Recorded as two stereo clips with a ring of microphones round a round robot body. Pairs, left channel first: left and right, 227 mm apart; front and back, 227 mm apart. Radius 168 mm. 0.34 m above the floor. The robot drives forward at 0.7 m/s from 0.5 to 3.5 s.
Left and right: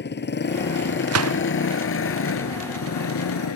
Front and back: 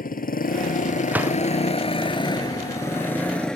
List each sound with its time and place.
0.0 s a motorcycle: 50° left; by 3.6 s 85° left
1.1 s a gunshot: 95° right